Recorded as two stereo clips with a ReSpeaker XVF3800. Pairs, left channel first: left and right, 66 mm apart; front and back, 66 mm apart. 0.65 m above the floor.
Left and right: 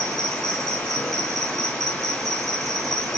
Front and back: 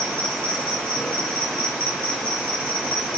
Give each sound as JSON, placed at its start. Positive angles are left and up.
{"t": 0.0, "sound": "an insect", "azimuth_deg": -60, "distance_m": 2.5}